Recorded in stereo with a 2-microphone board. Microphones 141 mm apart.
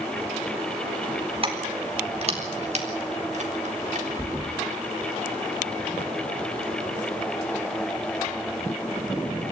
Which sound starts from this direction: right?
Keys jangling, at 1.4 s.